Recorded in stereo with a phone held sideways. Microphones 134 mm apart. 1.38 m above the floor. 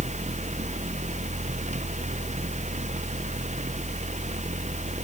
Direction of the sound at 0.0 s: 60° right (ahead or behind).